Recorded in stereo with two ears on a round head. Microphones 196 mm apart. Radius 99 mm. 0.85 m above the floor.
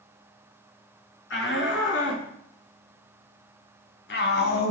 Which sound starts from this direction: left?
A shout, at 1.3 s.